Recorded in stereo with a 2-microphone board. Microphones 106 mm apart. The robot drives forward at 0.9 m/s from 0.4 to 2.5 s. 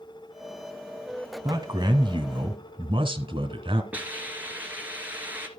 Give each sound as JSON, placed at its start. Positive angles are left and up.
{"t": 1.4, "sound": "a man speaking", "side_deg": -40, "distance_m": 1.8}
{"t": 3.9, "sound": "a hiss", "side_deg": -15, "distance_m": 2.0}